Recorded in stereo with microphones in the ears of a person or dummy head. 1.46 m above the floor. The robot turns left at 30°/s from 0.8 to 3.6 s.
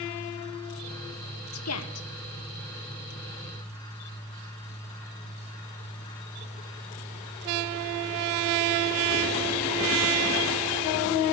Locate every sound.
1.5 s a woman speaking: 70° left (ahead or behind), 1.4 m; by 2.1 s 75° left (ahead or behind), 1.4 m